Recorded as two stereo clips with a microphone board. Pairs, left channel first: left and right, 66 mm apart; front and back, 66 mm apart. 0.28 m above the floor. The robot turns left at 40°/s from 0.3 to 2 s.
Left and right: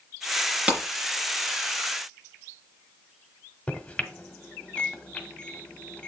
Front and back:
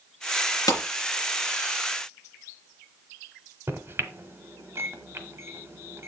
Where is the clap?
20° right, 3 m; by 0.8 s 25° right, 3 m.